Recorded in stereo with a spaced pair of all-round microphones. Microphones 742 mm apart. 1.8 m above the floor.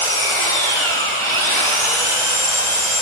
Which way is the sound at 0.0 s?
40° right (ahead or behind).